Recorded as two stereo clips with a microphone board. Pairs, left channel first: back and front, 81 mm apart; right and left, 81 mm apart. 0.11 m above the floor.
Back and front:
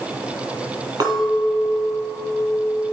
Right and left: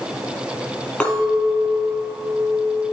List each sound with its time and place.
1.0 s a clink: 10° right, 2 m